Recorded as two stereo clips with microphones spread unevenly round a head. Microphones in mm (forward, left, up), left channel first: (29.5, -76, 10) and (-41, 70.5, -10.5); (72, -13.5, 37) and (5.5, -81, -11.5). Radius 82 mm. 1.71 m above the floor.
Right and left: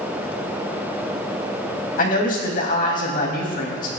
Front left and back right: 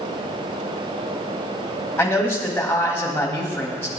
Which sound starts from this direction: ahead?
A man speaking, at 2.0 s.